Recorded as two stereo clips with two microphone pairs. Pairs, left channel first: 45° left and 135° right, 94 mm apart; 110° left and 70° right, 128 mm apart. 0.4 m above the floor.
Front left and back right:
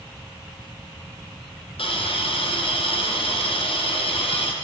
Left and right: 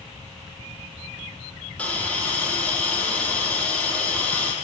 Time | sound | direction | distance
1.8 | a hiss | 30° left | 5.5 m